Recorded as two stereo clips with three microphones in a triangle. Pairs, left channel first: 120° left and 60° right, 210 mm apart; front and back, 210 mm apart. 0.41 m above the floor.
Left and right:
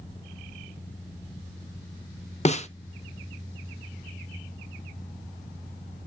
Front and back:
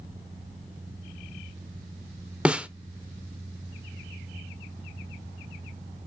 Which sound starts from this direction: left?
A snare drum, at 2.5 s.